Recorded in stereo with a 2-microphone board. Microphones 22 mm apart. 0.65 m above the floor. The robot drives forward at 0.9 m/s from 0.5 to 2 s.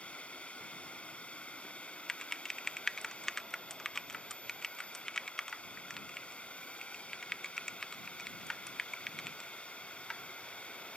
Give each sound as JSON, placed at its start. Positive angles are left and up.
{"t": 0.0, "sound": "a drone", "side_deg": 65}
{"t": 2.1, "sound": "typing on a keyboard", "side_deg": 25}